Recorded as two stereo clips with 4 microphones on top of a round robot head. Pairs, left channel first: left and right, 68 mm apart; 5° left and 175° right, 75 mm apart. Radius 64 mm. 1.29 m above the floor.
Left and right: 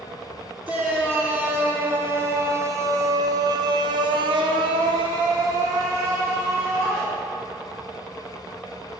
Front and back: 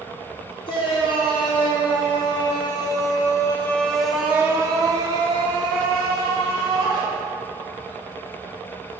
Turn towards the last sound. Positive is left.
turn(degrees=-160)